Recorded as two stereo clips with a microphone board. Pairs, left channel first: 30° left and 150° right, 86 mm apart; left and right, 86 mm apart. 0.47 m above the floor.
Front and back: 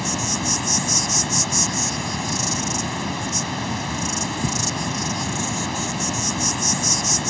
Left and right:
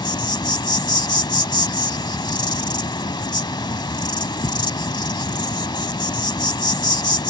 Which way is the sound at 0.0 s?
120° left.